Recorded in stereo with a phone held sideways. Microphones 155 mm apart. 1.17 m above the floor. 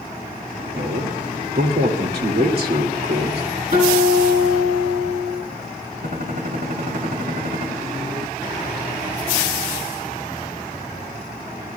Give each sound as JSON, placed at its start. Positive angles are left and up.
{"t": 0.8, "sound": "a man speaking", "side_deg": -80, "distance_m": 2.5}
{"t": 3.7, "sound": "a guitar", "side_deg": -70, "distance_m": 8.0}
{"t": 6.0, "sound": "a gunshot", "side_deg": -60, "distance_m": 3.0}